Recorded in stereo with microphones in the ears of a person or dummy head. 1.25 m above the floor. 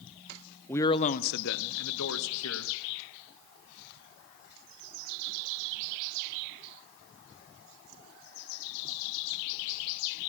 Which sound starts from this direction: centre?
A man speaking, at 0.7 s.